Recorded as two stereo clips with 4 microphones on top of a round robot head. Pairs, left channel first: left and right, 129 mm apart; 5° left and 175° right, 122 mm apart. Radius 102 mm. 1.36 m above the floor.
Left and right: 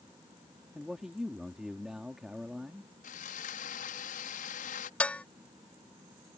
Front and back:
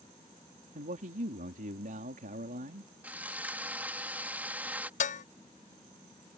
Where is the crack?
No crack in this recording.